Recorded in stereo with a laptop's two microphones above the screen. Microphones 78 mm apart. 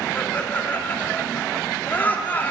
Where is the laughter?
25° left (ahead or behind), 2.5 m.